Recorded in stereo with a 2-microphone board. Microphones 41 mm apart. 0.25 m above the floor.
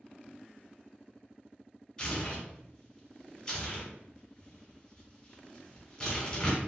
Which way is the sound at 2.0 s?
15° left (ahead or behind).